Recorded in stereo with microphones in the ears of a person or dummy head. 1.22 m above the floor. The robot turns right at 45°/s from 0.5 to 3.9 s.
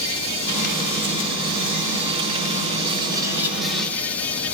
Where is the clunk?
No clunk in this recording.